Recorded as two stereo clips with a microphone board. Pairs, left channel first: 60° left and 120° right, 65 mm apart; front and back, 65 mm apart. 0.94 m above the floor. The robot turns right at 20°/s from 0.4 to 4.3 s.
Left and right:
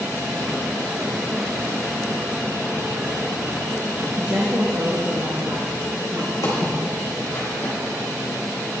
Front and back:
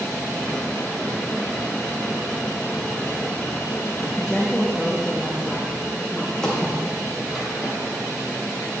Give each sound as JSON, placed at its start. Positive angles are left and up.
{"t": 4.2, "sound": "a woman speaking", "azimuth_deg": -90, "distance_m": 1.1}
{"t": 6.4, "sound": "footsteps", "azimuth_deg": 80, "distance_m": 3.0}